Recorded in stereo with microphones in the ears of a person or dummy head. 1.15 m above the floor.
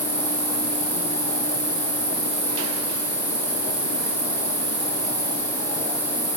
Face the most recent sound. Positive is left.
turn(degrees=-30)  # may be behind; listen again after turning